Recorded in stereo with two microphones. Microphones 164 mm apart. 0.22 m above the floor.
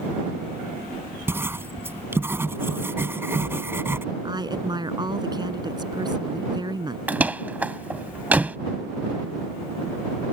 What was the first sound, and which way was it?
Writing, 15° right (ahead or behind).